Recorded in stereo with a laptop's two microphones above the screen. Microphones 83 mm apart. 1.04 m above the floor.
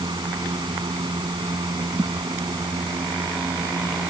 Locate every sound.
0.0 s a fan: 70° right (ahead or behind)
1.9 s a thud: 35° right (ahead or behind)